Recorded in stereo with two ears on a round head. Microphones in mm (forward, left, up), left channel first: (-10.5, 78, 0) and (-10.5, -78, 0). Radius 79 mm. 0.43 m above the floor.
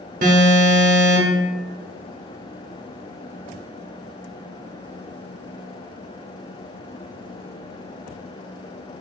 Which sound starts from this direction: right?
An alarm, at 0.2 s.